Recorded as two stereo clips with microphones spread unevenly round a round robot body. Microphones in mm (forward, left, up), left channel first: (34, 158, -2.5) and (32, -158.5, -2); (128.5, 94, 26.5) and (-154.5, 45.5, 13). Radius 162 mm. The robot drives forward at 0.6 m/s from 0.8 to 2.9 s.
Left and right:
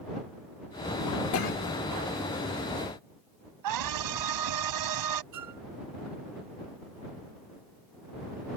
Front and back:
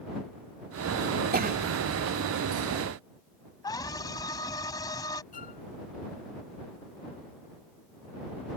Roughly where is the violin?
Ahead right.